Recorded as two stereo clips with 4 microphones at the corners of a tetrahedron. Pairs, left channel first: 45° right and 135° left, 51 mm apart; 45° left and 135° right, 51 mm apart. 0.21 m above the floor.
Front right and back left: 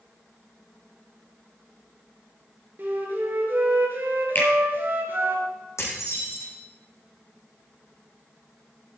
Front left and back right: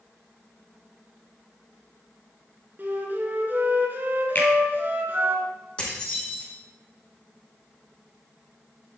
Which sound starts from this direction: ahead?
A finger snap, at 4.3 s.